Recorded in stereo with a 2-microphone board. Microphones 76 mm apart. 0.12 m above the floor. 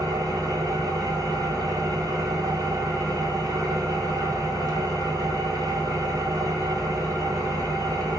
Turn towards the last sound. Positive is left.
turn(degrees=-50)  # may be behind; listen again after turning